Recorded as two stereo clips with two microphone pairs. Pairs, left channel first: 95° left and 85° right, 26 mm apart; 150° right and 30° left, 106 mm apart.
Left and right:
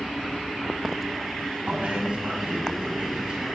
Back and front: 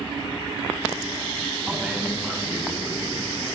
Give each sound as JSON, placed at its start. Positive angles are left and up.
{"t": 1.7, "sound": "a man speaking", "azimuth_deg": -45, "distance_m": 6.0}